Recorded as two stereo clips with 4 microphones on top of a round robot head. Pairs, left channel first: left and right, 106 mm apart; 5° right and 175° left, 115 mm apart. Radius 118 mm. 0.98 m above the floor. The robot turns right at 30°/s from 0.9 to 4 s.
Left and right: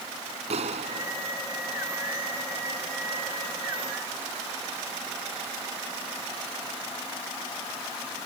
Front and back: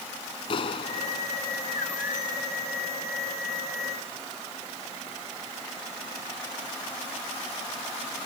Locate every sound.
0.5 s a clap: 60° right; by 1.3 s 45° right